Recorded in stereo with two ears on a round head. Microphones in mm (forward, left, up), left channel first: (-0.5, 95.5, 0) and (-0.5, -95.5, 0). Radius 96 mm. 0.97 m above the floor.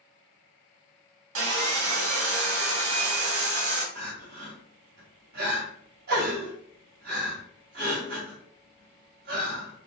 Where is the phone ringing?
I don't hear a phone ringing.